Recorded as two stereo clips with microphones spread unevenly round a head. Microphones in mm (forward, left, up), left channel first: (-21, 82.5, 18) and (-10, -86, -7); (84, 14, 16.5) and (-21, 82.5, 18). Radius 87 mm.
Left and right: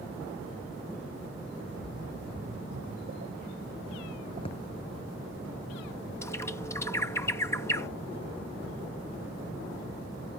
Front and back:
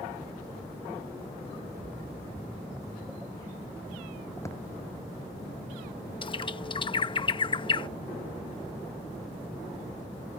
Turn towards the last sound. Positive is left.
turn(degrees=15)